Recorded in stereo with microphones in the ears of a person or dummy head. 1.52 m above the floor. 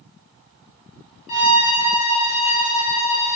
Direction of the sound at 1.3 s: 40° left (ahead or behind).